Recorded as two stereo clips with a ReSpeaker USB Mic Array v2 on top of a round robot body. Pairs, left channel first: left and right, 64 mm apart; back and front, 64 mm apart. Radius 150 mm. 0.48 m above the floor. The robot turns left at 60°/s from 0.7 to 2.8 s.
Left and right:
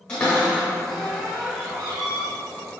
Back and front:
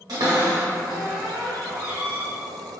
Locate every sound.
0.1 s a cupboard door: 15° left, 0.8 m; by 2.3 s 80° right, 0.8 m